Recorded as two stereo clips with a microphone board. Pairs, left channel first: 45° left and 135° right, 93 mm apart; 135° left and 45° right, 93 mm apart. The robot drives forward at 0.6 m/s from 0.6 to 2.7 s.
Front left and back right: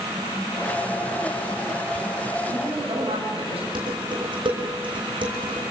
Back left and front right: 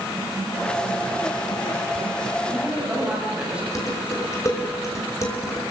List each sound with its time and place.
2.4 s a woman speaking: 120° right, 9.5 m
3.8 s dishes clattering: 165° right, 5.5 m